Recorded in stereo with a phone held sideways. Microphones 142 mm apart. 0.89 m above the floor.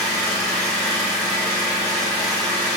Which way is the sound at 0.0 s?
10° left (ahead or behind).